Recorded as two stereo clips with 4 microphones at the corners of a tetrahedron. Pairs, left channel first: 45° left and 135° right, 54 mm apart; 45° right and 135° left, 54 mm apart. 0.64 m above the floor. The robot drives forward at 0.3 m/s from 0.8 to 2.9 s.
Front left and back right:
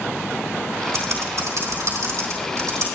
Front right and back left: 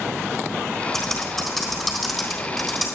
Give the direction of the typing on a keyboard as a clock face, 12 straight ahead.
4 o'clock.